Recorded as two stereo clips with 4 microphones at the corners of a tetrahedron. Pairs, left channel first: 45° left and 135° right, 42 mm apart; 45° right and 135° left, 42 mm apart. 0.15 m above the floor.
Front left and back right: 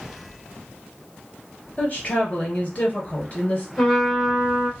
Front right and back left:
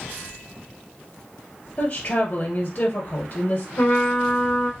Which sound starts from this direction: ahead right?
A trumpet, at 3.8 s.